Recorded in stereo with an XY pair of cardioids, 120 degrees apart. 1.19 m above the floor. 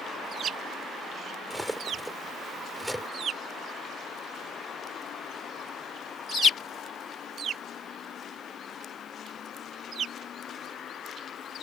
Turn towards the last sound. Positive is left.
turn(degrees=-5)